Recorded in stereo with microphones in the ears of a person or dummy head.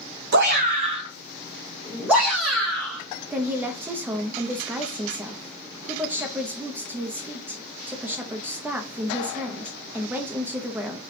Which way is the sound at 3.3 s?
10° right (ahead or behind).